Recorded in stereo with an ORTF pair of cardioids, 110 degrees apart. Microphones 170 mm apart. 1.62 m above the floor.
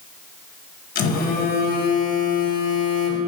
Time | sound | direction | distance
0.9 | a phone buzzing | 65° left | 1.5 m